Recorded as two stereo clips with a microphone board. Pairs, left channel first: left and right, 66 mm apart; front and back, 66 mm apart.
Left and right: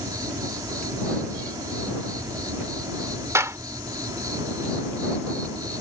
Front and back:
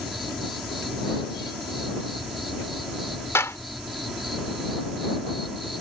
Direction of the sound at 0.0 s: 90° right.